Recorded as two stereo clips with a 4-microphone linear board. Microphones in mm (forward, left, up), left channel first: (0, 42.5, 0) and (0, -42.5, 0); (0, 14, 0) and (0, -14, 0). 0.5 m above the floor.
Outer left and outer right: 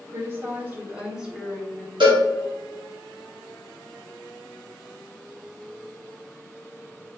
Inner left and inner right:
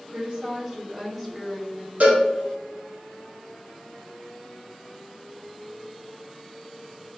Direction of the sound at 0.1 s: 35° right (ahead or behind).